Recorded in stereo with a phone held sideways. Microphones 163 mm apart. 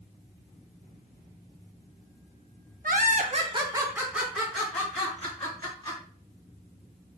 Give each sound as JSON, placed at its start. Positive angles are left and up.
{"t": 2.8, "sound": "laughter", "side_deg": -60, "distance_m": 0.6}